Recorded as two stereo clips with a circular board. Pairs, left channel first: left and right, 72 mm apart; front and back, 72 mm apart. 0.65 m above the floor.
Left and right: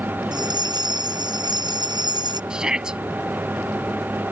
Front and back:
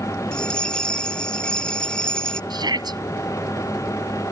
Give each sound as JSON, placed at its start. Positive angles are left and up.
{"t": 0.3, "sound": "a bell", "azimuth_deg": -80}
{"t": 2.5, "sound": "a shout", "azimuth_deg": -170}